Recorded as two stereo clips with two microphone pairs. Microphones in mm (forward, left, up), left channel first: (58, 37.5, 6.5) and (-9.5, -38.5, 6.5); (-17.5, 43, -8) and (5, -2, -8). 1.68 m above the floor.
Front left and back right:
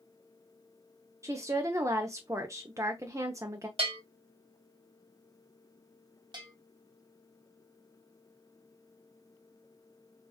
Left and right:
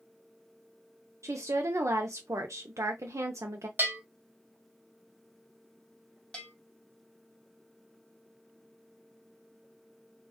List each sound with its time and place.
1.2 s a woman speaking: 70° right, 0.5 m
3.8 s a bell: 110° right, 1.4 m
6.3 s a bell: 170° right, 0.9 m